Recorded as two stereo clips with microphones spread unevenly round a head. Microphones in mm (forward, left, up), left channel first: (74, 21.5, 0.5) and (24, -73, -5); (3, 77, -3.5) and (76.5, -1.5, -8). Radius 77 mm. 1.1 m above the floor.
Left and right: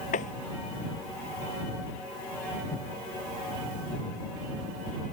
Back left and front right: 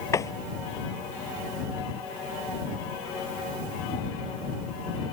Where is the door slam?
75° left.